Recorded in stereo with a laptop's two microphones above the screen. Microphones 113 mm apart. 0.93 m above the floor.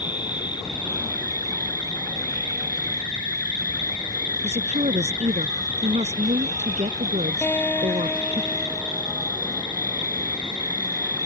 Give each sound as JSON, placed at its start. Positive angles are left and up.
{"t": 0.0, "sound": "an insect", "side_deg": 40}
{"t": 4.4, "sound": "a woman speaking", "side_deg": -75}
{"t": 7.4, "sound": "a guitar", "side_deg": 15}